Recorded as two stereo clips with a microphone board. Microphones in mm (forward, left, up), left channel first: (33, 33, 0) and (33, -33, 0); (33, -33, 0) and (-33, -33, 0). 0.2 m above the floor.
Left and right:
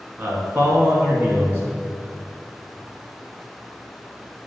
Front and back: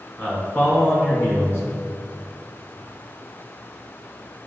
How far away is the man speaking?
About 1.9 m.